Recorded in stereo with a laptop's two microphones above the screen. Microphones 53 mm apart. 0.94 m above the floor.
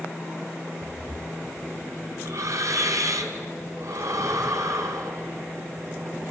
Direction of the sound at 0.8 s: 75° right (ahead or behind).